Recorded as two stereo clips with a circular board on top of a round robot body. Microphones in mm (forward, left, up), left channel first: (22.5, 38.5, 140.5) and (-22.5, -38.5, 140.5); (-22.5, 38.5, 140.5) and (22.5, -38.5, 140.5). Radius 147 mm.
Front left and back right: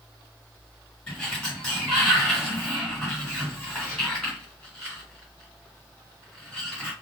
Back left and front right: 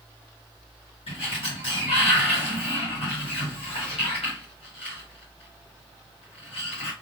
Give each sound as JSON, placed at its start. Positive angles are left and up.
{"t": 1.1, "sound": "a sliding door", "azimuth_deg": 140, "distance_m": 1.8}